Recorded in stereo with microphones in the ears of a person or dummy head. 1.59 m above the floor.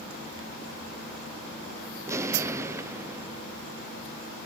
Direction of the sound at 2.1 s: 20° right (ahead or behind).